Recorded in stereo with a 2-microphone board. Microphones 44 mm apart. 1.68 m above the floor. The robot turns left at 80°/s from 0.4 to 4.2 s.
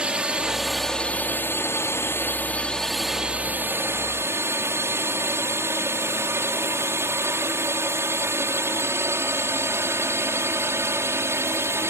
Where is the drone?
20° right (ahead or behind); by 11.9 s 75° right (ahead or behind).